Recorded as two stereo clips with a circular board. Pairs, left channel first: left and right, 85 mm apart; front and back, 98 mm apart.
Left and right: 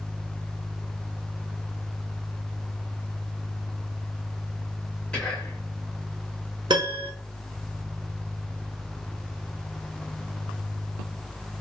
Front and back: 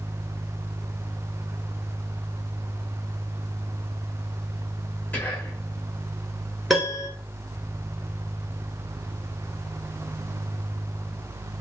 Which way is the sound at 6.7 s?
90° right.